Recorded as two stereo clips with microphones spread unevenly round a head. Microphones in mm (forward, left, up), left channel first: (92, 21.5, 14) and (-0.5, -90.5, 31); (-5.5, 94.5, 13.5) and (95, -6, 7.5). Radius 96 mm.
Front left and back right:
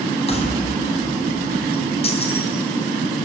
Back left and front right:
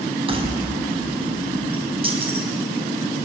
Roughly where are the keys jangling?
Ahead.